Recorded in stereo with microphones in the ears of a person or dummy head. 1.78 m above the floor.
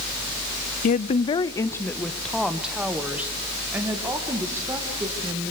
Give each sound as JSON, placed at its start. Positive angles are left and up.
{"t": 0.8, "sound": "a woman speaking", "side_deg": 50, "distance_m": 0.7}